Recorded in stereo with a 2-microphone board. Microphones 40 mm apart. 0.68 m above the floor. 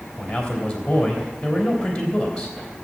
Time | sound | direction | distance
0.2 | a man speaking | 15° left (ahead or behind) | 3.5 m